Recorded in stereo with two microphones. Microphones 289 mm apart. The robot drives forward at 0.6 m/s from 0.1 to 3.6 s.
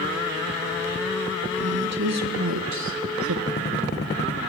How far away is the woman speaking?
About 2 m.